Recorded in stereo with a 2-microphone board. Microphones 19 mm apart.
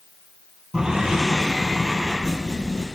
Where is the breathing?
40° right (ahead or behind), 2 m.